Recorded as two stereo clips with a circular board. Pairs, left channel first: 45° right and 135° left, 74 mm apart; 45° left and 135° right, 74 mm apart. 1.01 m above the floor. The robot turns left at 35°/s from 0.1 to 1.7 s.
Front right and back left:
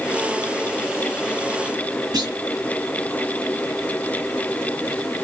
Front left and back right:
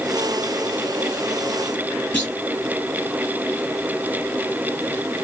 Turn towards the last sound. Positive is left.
turn(degrees=110)